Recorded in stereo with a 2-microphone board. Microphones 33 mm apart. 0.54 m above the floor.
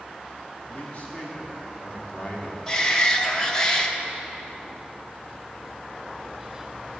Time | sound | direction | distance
0.7 | a man speaking | 40° left (ahead or behind) | 1.4 m
2.7 | a shout | 20° left (ahead or behind) | 0.6 m